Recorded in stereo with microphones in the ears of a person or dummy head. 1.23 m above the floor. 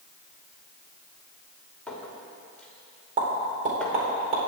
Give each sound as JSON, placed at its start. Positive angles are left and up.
{"t": 1.9, "sound": "a clink", "side_deg": 5, "distance_m": 2.5}
{"t": 3.2, "sound": "a pop", "side_deg": -40, "distance_m": 4.0}